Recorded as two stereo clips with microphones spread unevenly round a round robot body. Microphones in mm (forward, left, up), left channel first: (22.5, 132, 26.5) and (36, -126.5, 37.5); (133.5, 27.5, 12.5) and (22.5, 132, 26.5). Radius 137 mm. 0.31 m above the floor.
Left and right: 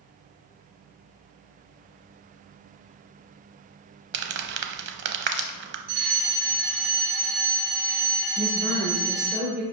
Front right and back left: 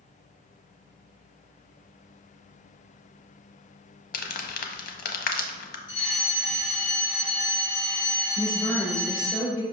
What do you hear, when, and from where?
4.1 s crumpling: 40° right, 0.9 m
5.9 s a fire alarm: 90° right, 2.5 m
8.4 s a woman speaking: 75° right, 1.3 m